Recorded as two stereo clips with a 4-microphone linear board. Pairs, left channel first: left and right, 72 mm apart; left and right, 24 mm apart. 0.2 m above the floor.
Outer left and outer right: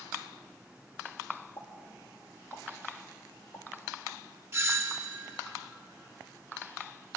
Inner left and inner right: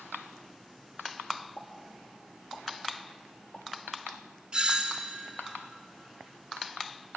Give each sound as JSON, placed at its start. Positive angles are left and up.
{"t": 1.6, "sound": "a pop", "side_deg": 45, "distance_m": 5.5}
{"t": 4.5, "sound": "a doorbell", "side_deg": -40, "distance_m": 2.5}